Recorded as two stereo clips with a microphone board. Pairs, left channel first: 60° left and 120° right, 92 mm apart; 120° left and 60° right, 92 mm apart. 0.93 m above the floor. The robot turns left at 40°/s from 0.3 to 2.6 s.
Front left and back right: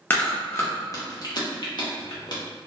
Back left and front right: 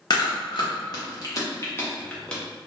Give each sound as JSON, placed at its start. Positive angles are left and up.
{"t": 0.1, "sound": "chewing", "azimuth_deg": 125, "distance_m": 0.8}